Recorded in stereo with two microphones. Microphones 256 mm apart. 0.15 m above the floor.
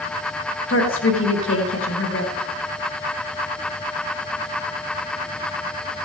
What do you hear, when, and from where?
0.7 s a woman speaking: 50° left (ahead or behind), 2.5 m